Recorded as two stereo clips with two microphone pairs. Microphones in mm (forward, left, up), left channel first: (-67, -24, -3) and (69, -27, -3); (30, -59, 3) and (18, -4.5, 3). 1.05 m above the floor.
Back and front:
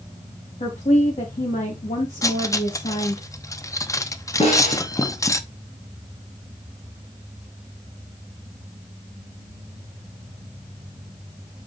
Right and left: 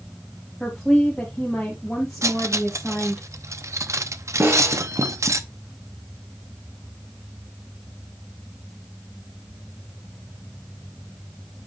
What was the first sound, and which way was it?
A woman speaking, 155° right.